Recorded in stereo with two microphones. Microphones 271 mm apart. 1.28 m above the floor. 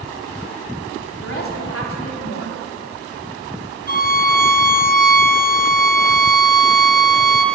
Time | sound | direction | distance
1.2 | a woman speaking | 50° left (ahead or behind) | 3 m
3.9 | a violin | 30° left (ahead or behind) | 0.9 m